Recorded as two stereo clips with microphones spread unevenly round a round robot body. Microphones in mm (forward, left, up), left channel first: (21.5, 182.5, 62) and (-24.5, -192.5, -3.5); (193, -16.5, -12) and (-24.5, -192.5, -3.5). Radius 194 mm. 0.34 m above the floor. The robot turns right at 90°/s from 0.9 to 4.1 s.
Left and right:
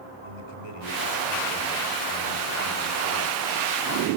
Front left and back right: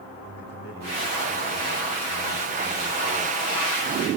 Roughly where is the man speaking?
Left.